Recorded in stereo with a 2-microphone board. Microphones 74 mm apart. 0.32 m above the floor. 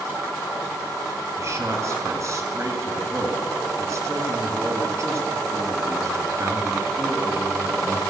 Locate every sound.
1.4 s a man speaking: 45° right (ahead or behind), 2.5 m